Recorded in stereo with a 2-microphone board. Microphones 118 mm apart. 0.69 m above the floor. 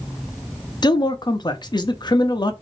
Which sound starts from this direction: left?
A man speaking, at 0.8 s.